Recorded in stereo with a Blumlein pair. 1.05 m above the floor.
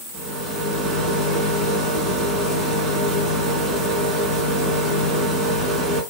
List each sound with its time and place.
0.1 s a rattle: 10° right, 4 m